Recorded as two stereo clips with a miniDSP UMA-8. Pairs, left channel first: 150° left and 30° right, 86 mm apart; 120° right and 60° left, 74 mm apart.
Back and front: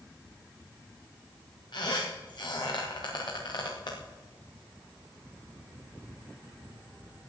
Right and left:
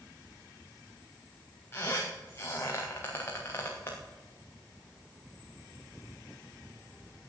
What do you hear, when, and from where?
1.7 s a squeak: 175° right, 4 m